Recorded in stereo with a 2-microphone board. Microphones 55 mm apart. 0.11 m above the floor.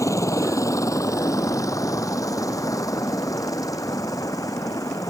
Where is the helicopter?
65° left (ahead or behind); by 5.1 s 80° left.